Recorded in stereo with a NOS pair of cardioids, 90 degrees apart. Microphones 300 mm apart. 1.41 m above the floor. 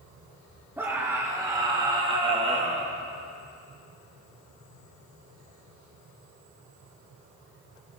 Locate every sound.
0.8 s a scream: 10° right, 5 m; by 2.9 s 25° right, 3 m